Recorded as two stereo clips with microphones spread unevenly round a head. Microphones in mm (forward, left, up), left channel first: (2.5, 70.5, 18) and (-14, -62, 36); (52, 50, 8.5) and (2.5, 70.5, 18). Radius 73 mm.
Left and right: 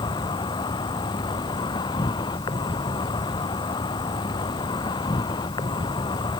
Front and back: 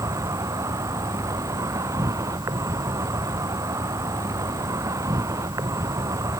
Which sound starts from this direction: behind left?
An insect, at 0.0 s.